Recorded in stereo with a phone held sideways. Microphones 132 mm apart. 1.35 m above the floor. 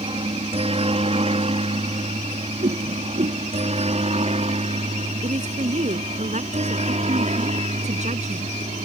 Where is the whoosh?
70° right (ahead or behind).